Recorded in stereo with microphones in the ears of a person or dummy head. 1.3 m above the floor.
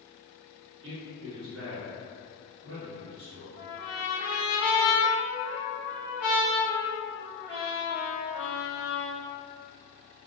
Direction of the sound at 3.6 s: 15° left (ahead or behind).